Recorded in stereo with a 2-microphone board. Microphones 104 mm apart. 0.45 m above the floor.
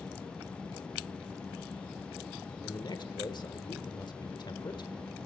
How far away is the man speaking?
About 1.1 m.